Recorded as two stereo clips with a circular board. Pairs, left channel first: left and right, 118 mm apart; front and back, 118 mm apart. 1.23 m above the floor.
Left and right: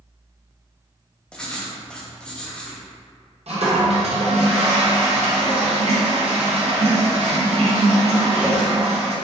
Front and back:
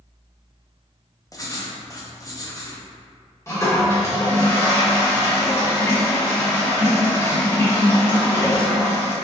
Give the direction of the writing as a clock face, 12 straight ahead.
12 o'clock.